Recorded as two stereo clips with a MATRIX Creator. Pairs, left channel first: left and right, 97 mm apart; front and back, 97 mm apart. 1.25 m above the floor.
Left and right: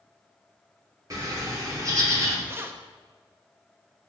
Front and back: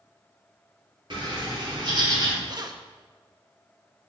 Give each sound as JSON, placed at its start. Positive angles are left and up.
{"t": 1.1, "sound": "a bird", "azimuth_deg": -140, "distance_m": 2.5}
{"t": 2.5, "sound": "keys jangling", "azimuth_deg": -150, "distance_m": 0.7}